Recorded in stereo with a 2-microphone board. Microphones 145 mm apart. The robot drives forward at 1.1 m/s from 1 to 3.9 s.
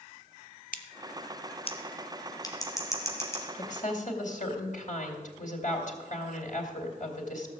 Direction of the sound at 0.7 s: 70° left (ahead or behind).